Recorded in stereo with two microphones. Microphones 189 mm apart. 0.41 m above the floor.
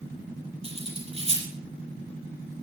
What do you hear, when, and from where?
0.6 s cutlery clinking: 30° right (ahead or behind), 6 m